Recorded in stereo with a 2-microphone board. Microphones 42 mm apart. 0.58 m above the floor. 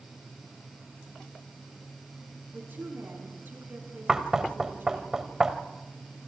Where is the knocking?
15° right (ahead or behind), 1.5 m.